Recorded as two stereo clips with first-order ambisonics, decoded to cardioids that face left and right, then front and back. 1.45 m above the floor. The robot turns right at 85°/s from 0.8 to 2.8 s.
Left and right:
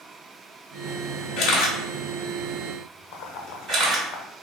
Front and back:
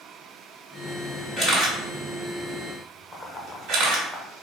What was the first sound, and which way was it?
A camera shutter, 85° left.